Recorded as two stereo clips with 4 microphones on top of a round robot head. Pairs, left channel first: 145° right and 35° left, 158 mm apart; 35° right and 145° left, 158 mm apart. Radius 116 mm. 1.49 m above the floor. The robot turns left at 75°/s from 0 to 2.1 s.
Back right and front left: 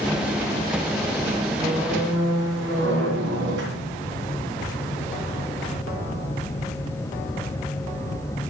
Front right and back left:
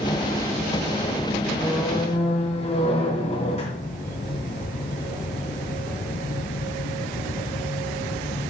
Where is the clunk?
No clunk in this recording.